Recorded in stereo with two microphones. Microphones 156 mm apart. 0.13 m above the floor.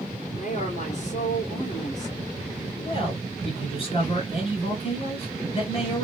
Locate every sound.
0.3 s a woman speaking: 50° left (ahead or behind), 2 m
2.8 s a man speaking: 40° left (ahead or behind), 2 m